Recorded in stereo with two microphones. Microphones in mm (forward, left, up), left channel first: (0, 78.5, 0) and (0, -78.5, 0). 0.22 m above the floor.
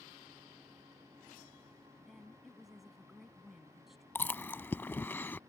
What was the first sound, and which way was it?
A woman speaking, centre (ahead or behind).